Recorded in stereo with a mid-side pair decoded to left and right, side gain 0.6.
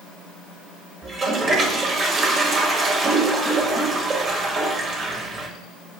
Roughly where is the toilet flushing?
Ahead right.